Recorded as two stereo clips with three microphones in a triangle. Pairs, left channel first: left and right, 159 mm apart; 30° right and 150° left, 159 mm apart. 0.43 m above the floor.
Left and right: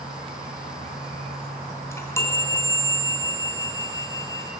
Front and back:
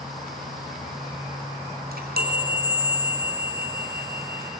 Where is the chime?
160° left, 4 m.